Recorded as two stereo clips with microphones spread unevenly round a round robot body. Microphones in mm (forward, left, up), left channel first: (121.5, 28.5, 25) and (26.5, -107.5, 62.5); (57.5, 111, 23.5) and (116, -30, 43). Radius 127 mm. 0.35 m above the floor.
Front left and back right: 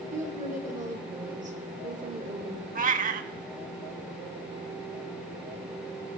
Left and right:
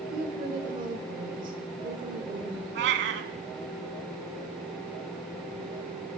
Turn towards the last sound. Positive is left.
turn(degrees=-80)